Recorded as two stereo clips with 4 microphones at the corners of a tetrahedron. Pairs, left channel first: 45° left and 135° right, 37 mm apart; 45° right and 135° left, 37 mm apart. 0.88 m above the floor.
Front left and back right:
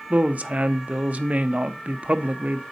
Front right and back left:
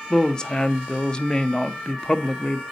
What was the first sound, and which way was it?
A woman speaking, 105° right.